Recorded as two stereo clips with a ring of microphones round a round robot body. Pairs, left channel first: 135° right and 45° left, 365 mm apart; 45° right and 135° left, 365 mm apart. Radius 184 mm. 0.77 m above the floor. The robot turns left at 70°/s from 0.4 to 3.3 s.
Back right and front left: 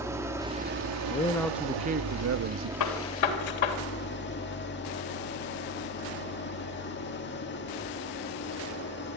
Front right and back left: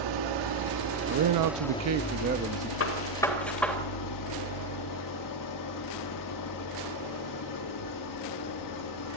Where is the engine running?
125° left, 1.7 m; by 9.2 s 75° right, 1.7 m.